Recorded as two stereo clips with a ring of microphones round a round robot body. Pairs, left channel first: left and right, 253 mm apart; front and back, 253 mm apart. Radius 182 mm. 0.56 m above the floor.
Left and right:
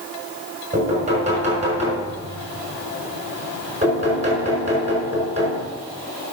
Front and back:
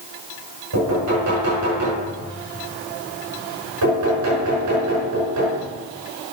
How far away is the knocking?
About 6 m.